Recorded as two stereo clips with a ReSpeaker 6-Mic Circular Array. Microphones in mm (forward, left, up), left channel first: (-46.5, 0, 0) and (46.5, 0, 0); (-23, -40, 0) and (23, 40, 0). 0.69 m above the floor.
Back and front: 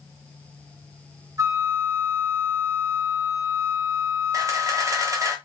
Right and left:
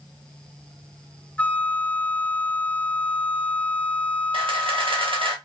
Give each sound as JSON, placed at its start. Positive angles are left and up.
{"t": 1.4, "sound": "a flute", "azimuth_deg": -45, "distance_m": 0.5}
{"t": 4.3, "sound": "a camera shutter", "azimuth_deg": 50, "distance_m": 0.7}